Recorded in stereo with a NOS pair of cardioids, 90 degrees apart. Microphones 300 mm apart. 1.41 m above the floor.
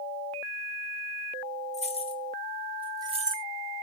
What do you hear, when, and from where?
1.7 s keys jangling: 25° left, 1.2 m; by 3.5 s 40° right, 0.6 m